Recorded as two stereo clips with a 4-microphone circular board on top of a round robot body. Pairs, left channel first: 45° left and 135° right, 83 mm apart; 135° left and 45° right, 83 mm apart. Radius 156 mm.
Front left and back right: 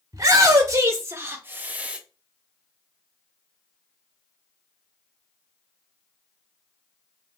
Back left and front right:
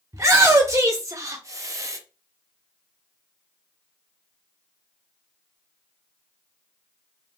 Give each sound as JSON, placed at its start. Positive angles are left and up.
{"t": 0.1, "sound": "a shout", "azimuth_deg": -95, "distance_m": 1.7}